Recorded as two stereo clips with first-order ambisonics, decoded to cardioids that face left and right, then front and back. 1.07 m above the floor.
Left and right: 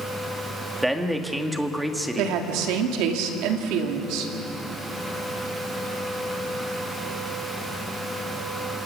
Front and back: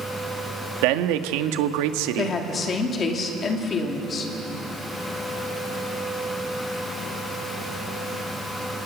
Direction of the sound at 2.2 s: 65° right.